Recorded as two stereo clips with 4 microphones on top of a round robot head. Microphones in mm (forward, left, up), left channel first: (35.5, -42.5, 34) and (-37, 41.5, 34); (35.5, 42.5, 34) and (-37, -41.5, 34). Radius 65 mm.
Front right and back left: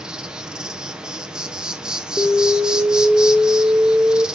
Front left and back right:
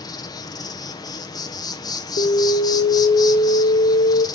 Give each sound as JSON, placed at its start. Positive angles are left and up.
{"t": 0.0, "sound": "an insect", "azimuth_deg": 50, "distance_m": 1.2}
{"t": 2.2, "sound": "an alarm", "azimuth_deg": 45, "distance_m": 0.9}